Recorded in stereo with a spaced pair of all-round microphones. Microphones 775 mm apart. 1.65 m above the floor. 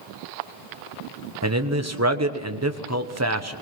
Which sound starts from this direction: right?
A man speaking, at 1.4 s.